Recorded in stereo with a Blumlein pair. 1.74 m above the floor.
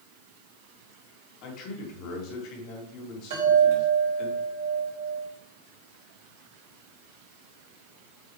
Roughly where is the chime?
Ahead right.